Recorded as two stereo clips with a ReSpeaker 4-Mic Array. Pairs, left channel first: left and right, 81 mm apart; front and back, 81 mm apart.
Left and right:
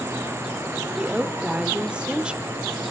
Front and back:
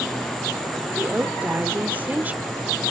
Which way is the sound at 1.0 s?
145° right.